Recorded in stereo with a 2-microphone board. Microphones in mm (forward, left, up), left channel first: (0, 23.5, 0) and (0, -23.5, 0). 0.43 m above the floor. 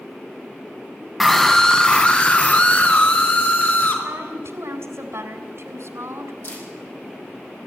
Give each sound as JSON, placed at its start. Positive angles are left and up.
{"t": 1.2, "sound": "a scream", "side_deg": 5, "distance_m": 3.0}
{"t": 4.0, "sound": "a woman speaking", "side_deg": -70, "distance_m": 3.0}
{"t": 6.4, "sound": "a camera shutter", "side_deg": 55, "distance_m": 9.0}